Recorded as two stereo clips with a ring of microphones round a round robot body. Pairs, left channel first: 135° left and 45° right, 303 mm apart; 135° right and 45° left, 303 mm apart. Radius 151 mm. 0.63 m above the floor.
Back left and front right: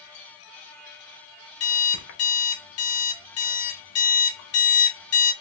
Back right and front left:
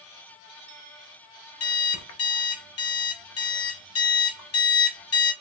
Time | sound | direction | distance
1.6 | an alarm clock | straight behind | 1.0 m